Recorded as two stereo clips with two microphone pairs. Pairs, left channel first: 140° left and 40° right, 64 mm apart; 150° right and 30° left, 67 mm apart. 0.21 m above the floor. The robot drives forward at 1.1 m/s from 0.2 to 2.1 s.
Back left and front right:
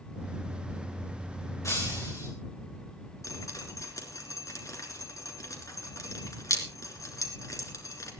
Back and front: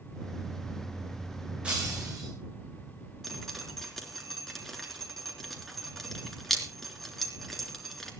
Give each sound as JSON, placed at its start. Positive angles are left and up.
{"t": 1.6, "sound": "breaking glass", "azimuth_deg": 105, "distance_m": 4.0}
{"t": 3.2, "sound": "dripping", "azimuth_deg": 125, "distance_m": 3.5}